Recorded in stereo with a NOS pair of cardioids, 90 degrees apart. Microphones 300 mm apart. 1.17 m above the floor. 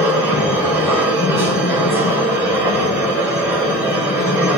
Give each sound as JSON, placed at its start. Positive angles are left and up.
{"t": 0.0, "sound": "a machine running", "azimuth_deg": -5, "distance_m": 5.5}